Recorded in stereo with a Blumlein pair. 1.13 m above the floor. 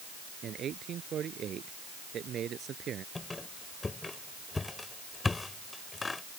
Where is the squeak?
10° left.